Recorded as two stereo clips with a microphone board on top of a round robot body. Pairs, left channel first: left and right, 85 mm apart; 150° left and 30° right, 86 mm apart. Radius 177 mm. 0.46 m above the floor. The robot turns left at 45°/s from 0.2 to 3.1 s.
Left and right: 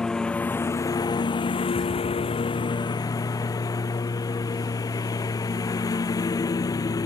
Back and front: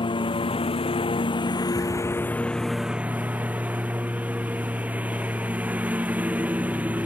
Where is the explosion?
55° left; by 2.9 s straight ahead.